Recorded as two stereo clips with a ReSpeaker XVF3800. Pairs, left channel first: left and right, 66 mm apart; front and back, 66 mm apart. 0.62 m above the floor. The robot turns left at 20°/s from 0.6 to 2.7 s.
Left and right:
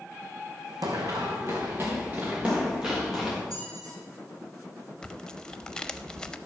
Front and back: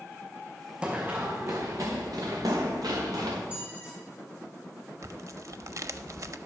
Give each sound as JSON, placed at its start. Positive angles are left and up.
{"t": 0.8, "sound": "running footsteps", "azimuth_deg": -110, "distance_m": 1.9}
{"t": 3.5, "sound": "a squeak", "azimuth_deg": -110, "distance_m": 4.5}
{"t": 5.0, "sound": "tearing paper", "azimuth_deg": 165, "distance_m": 0.5}